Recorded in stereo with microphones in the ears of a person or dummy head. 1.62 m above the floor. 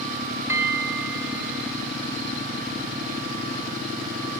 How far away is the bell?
About 1.9 m.